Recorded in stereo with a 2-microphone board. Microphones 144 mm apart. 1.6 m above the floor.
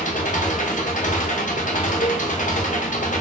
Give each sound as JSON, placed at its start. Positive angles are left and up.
{"t": 0.0, "sound": "an engine running", "side_deg": 65, "distance_m": 0.9}
{"t": 2.0, "sound": "a cowbell", "side_deg": 75, "distance_m": 0.6}